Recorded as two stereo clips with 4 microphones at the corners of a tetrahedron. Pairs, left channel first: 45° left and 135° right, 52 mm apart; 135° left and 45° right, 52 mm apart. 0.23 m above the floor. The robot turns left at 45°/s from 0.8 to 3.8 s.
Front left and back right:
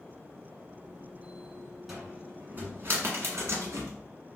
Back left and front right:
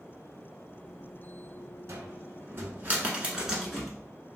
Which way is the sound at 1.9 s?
50° right.